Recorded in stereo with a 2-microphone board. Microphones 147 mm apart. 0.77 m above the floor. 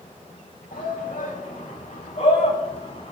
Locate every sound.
0.7 s a shout: 70° left (ahead or behind), 5.5 m; by 3.1 s 45° left (ahead or behind), 6 m